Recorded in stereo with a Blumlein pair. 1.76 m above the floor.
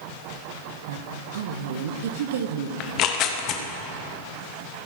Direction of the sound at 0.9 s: 60° right.